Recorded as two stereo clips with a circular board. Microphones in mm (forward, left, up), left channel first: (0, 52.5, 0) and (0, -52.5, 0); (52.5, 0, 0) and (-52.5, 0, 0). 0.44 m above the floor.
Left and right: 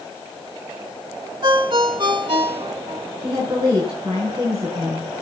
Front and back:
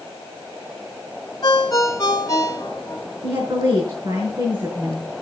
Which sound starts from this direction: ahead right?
A ringtone, at 1.4 s.